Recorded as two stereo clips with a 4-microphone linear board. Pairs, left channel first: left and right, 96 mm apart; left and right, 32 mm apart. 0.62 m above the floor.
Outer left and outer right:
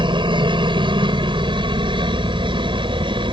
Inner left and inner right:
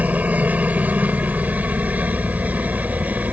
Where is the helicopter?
55° right (ahead or behind); by 3.3 s 60° right (ahead or behind).